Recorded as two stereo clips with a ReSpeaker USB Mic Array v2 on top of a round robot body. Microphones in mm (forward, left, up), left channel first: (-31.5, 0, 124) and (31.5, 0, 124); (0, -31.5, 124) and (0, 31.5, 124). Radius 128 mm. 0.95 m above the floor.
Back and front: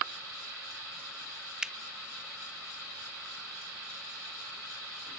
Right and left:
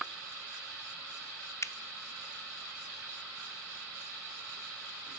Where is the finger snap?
75° right, 0.8 m.